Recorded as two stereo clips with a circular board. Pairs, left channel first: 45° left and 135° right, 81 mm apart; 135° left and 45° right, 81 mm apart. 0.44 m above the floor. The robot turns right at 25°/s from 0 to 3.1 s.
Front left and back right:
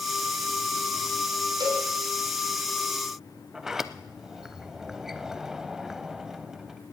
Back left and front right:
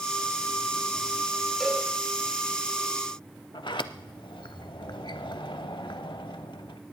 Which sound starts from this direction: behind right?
A cowbell, at 1.6 s.